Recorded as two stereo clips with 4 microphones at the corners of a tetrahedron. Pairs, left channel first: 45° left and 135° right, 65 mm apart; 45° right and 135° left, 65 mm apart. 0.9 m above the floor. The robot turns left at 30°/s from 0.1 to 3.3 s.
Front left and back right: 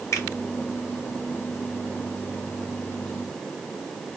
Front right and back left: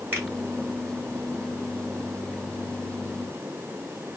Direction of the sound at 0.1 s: 80° left.